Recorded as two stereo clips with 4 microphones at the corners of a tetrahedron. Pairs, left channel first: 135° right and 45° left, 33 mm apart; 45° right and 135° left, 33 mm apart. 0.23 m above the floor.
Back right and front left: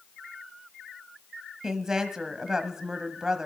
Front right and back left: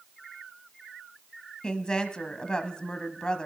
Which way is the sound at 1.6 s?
5° right.